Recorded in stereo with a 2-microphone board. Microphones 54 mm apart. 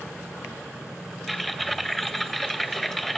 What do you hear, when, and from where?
1.3 s typing on a keyboard: 5° left (ahead or behind), 0.5 m